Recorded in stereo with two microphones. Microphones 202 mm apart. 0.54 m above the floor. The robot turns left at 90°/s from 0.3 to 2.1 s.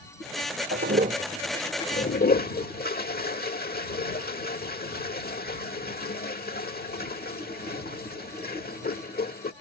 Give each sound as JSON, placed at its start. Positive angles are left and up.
{"t": 0.7, "sound": "a toilet flushing", "side_deg": -75}